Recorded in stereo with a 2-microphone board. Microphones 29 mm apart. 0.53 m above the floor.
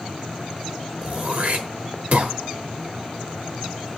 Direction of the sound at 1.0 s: 60° right (ahead or behind).